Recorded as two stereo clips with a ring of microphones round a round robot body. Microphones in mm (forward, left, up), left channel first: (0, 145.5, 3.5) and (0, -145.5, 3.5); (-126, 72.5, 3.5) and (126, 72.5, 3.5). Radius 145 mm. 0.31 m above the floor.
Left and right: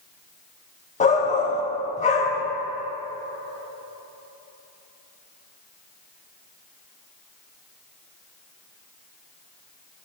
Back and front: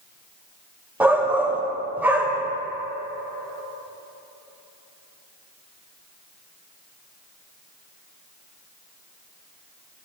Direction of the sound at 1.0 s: 75° left.